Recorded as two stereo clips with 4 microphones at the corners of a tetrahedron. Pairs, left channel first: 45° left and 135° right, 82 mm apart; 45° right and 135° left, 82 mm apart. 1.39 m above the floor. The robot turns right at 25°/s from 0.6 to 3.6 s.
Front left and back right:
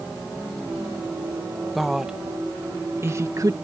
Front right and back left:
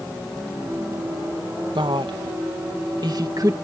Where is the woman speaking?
135° left; by 3.6 s straight behind.